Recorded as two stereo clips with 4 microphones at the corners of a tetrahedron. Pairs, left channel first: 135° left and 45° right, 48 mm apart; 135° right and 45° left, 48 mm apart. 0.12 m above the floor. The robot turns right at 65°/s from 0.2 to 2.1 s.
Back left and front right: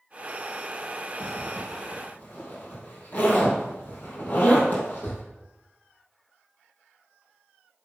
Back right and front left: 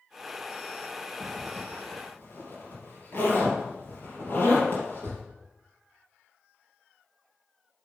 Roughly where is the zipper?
Behind left.